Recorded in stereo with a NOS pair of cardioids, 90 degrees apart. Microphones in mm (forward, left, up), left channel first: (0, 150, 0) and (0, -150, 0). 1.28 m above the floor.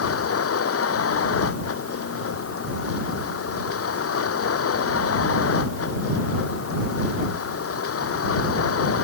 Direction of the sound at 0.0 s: 50° left.